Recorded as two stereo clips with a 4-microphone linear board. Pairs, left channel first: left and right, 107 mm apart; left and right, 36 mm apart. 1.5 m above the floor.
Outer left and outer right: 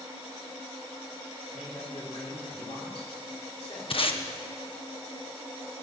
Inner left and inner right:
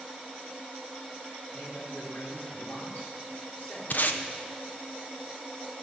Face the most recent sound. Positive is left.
turn(degrees=55)  # may be behind; listen again after turning